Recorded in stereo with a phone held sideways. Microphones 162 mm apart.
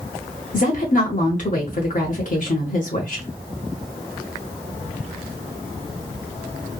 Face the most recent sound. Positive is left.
turn(degrees=55)  # may be behind; listen again after turning